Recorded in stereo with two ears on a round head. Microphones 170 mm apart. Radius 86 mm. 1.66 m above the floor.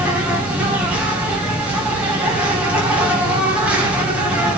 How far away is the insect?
About 2.5 m.